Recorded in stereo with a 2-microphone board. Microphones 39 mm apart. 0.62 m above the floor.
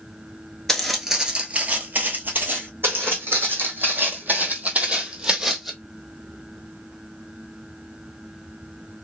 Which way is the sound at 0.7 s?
15° left (ahead or behind).